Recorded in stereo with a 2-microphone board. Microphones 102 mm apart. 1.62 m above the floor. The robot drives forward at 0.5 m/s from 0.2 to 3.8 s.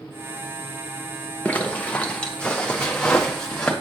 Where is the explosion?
I don't hear an explosion.